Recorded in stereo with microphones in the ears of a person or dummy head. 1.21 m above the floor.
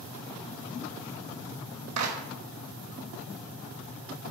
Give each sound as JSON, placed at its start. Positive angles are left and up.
{"t": 2.0, "sound": "a clap", "side_deg": -85, "distance_m": 2.5}